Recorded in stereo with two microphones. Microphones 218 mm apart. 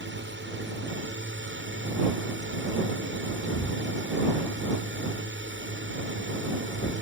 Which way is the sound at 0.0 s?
60° right (ahead or behind).